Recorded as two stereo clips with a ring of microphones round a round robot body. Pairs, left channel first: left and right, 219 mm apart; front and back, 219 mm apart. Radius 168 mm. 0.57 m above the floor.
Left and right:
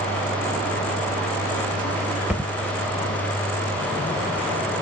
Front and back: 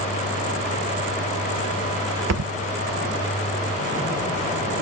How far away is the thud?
About 0.9 m.